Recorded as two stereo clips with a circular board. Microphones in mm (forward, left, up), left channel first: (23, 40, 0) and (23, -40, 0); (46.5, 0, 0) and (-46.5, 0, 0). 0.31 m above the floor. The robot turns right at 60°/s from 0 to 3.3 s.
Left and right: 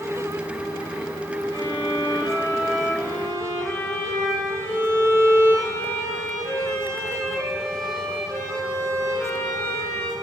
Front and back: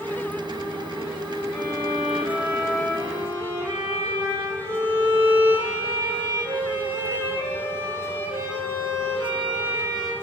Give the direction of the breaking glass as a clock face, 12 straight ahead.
I don't hear breaking glass.